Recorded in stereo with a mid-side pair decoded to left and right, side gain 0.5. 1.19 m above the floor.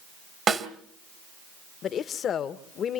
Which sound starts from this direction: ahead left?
A woman speaking, at 1.8 s.